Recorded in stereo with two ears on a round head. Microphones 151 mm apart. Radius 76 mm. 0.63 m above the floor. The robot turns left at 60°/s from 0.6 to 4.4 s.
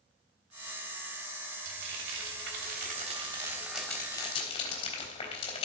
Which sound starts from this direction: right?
Frying, at 1.6 s.